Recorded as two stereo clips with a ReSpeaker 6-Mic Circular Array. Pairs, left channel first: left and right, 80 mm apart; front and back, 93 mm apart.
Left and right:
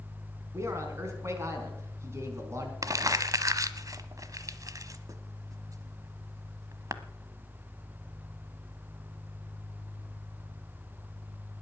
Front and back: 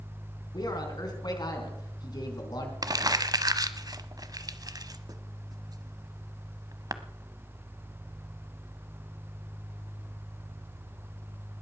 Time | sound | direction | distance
0.5 | a man speaking | 40° right | 4 m
2.8 | crumpling | 135° right | 0.8 m